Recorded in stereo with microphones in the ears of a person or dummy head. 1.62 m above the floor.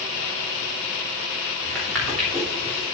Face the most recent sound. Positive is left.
turn(degrees=5)  # may be behind; listen again after turning